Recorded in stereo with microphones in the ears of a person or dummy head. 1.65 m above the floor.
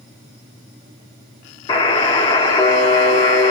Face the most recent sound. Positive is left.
turn(degrees=25)  # may be behind; listen again after turning